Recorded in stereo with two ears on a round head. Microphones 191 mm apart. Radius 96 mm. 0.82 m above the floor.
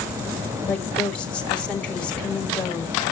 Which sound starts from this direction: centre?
A woman speaking, at 0.7 s.